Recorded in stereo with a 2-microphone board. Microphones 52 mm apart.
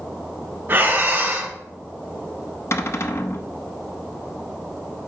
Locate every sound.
0.7 s breathing: 40° right (ahead or behind), 2 m
2.7 s a cupboard door: 65° left (ahead or behind), 0.8 m